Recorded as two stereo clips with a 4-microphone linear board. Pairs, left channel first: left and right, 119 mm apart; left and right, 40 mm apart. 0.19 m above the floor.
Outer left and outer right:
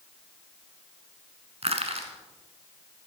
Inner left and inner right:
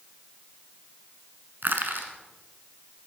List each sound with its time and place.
1.6 s crushing: 60° right (ahead or behind), 1.1 m